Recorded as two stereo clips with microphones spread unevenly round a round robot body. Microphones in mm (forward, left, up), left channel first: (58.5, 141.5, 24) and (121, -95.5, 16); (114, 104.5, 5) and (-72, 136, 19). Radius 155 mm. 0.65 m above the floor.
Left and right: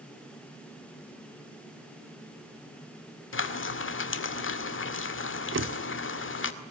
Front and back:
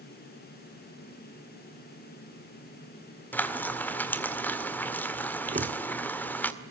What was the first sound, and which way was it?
Frying, 70° left.